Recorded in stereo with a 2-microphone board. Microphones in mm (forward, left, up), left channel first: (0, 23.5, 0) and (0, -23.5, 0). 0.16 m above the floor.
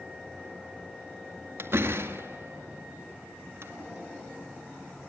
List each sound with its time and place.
1.6 s a door slam: 50° right (ahead or behind), 2 m